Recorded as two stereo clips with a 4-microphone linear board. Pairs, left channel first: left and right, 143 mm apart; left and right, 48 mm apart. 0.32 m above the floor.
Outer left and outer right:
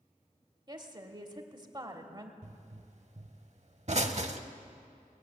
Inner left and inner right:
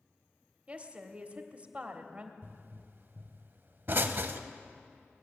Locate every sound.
0.7 s a woman speaking: 30° right (ahead or behind), 1.2 m
2.4 s a pop: 50° right (ahead or behind), 0.7 m